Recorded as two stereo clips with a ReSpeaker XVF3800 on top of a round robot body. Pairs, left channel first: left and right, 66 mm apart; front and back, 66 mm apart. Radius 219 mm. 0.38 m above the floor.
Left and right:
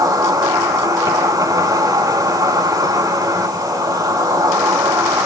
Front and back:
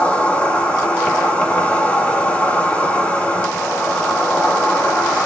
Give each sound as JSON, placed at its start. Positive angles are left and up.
{"t": 0.0, "sound": "an insect", "azimuth_deg": -70, "distance_m": 6.0}